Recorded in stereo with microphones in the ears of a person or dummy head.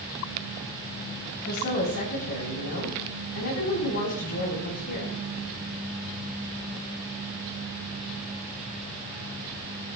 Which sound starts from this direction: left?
A woman speaking, at 1.4 s.